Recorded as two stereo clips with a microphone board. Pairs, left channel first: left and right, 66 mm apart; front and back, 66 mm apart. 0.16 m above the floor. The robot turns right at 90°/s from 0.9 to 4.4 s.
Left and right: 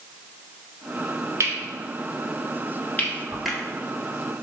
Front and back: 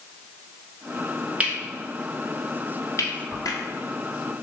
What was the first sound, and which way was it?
Cutlery clinking, 115° right.